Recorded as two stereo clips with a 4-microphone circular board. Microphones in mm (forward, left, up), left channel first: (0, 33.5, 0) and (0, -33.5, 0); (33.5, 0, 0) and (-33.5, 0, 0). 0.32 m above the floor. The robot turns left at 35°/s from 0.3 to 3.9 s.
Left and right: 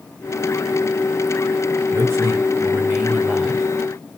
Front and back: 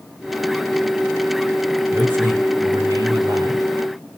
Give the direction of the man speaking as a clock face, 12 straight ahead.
4 o'clock.